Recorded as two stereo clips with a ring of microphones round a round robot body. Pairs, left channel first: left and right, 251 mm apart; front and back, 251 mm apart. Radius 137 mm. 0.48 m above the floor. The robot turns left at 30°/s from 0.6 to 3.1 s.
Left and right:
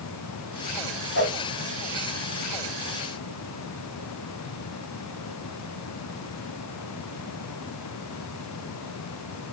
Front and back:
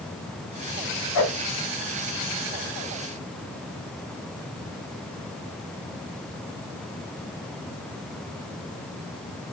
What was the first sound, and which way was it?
A whoosh, 35° left.